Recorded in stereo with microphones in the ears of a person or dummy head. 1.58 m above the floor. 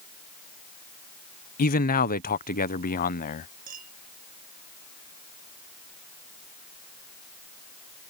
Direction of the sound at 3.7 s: 40° right (ahead or behind).